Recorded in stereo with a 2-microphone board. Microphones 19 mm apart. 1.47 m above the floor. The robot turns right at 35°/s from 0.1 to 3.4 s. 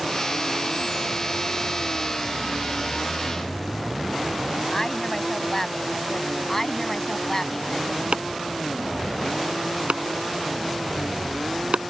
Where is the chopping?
85° right.